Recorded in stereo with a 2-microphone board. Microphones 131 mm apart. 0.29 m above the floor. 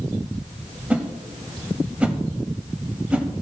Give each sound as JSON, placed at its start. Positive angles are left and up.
{"t": 0.9, "sound": "a whoosh", "side_deg": -10, "distance_m": 0.8}